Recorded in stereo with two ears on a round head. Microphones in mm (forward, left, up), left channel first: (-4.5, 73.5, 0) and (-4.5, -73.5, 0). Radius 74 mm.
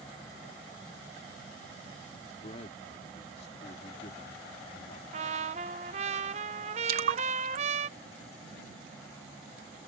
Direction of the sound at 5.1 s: 40° right (ahead or behind).